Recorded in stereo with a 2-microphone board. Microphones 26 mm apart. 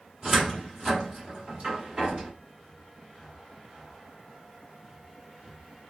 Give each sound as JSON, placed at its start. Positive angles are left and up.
{"t": 0.2, "sound": "a cupboard door", "side_deg": -40, "distance_m": 1.6}